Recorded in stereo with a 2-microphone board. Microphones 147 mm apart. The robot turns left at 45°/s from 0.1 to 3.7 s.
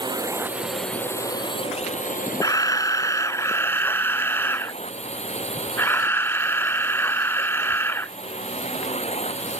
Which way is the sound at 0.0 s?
150° right.